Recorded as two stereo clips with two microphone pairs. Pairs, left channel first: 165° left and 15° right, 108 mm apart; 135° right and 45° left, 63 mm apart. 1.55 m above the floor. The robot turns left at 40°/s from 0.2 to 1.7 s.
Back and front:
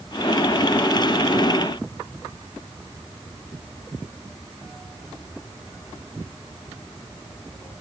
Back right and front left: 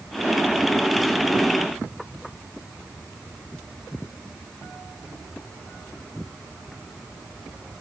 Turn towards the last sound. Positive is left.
No sound to turn to.